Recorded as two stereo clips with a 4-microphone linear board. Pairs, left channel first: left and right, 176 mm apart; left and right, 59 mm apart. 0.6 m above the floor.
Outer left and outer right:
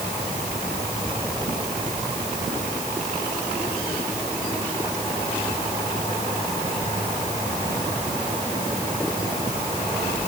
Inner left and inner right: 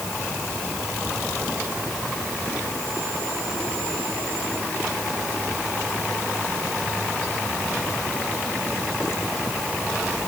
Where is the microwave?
I don't hear a microwave.